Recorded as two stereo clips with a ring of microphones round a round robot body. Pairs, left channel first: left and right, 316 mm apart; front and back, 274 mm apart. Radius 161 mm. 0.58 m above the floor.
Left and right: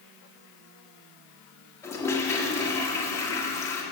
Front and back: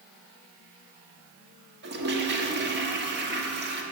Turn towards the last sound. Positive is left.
turn(degrees=165)